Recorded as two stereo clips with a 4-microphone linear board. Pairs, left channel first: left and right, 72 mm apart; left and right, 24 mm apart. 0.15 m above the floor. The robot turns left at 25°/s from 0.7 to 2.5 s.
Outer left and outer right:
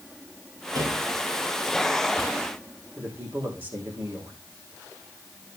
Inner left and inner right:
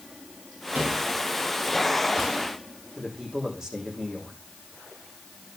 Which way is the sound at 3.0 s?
25° right (ahead or behind).